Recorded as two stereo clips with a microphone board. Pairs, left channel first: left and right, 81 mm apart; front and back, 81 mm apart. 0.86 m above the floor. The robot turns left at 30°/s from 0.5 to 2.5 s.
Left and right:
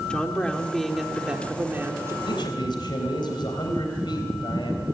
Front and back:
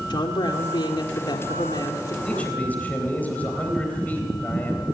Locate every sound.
0.1 s a woman speaking: 10° left, 3 m; by 2.1 s 35° right, 3 m
2.2 s a man speaking: 80° left, 3.5 m; by 5.0 s 70° left, 3.5 m